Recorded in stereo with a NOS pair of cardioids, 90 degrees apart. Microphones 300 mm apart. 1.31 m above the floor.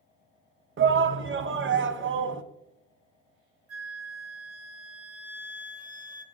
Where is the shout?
40° right, 0.9 m.